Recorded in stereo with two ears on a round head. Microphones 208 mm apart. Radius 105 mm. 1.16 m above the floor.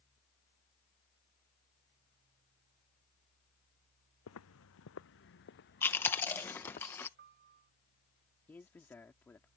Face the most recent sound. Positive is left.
turn(degrees=10)  # may be behind; listen again after turning